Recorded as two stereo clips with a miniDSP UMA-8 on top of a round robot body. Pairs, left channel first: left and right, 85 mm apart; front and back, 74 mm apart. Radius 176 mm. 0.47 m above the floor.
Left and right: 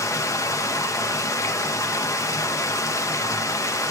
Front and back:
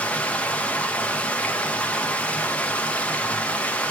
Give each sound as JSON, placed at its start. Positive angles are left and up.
{"t": 0.0, "sound": "running water", "azimuth_deg": 65, "distance_m": 1.0}